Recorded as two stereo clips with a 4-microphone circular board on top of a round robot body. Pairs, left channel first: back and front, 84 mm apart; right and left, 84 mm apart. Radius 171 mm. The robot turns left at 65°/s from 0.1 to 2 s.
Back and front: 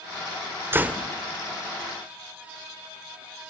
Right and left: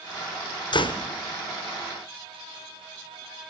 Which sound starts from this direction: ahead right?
A door slam, at 0.7 s.